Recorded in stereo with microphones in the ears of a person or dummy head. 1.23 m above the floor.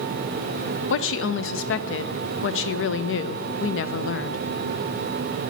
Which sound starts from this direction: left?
A woman speaking, at 0.9 s.